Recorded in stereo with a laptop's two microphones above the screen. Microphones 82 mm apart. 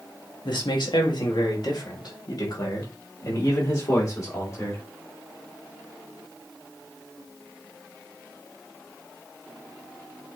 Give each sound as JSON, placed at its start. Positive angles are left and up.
{"t": 0.5, "sound": "a man speaking", "side_deg": 65, "distance_m": 2.0}